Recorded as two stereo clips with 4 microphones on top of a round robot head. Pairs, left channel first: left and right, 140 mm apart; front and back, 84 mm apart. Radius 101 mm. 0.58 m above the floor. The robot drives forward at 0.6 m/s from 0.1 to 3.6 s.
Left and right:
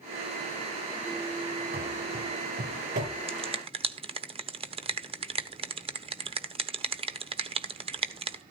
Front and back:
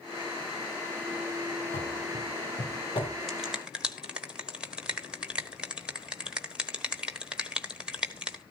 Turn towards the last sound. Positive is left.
turn(degrees=-105)